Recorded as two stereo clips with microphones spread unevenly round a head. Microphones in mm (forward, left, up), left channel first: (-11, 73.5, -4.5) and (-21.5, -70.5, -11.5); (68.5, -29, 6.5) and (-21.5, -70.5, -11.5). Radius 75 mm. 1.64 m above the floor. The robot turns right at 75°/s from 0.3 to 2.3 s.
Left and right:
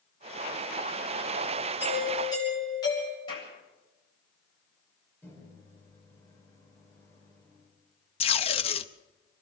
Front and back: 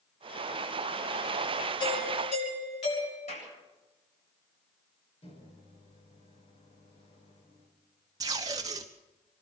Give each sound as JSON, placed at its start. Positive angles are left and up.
{"t": 1.8, "sound": "a doorbell", "azimuth_deg": -20, "distance_m": 9.5}
{"t": 3.3, "sound": "a clap", "azimuth_deg": 25, "distance_m": 8.0}
{"t": 5.2, "sound": "a microwave", "azimuth_deg": 10, "distance_m": 4.5}
{"t": 8.2, "sound": "tape being pulled", "azimuth_deg": 135, "distance_m": 0.9}